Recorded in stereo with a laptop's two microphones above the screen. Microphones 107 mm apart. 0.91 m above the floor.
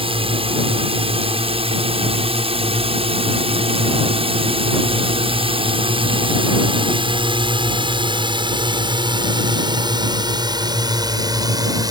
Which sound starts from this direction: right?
A drone, at 0.0 s.